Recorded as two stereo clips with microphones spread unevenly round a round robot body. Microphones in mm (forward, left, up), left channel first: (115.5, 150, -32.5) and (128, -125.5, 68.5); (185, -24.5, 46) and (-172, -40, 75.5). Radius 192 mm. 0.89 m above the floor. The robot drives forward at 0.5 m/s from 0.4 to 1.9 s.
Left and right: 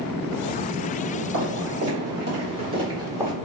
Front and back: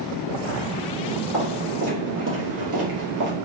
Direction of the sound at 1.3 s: 105° right.